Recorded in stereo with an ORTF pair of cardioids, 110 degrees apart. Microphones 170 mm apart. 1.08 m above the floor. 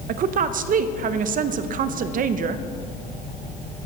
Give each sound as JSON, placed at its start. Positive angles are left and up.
{"t": 0.1, "sound": "a woman speaking", "azimuth_deg": -60, "distance_m": 0.7}